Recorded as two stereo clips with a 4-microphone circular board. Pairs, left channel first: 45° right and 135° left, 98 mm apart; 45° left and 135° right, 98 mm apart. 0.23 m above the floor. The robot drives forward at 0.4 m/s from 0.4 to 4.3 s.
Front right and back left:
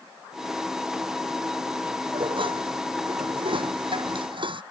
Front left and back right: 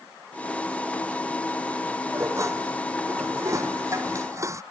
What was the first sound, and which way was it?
Dishes clattering, 165° left.